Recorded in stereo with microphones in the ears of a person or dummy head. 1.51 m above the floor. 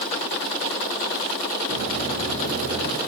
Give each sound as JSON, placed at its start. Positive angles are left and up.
{"t": 1.7, "sound": "footsteps", "side_deg": -55, "distance_m": 2.5}